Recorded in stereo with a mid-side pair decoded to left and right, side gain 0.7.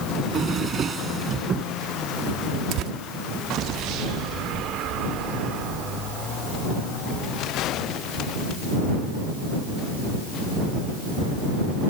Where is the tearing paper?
55° right.